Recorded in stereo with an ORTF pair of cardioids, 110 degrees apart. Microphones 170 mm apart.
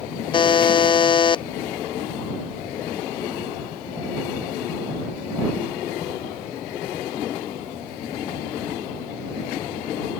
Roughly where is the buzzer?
Ahead left.